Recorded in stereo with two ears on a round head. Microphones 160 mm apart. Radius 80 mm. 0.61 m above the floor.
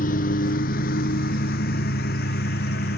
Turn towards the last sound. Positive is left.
turn(degrees=65)  # may be behind; listen again after turning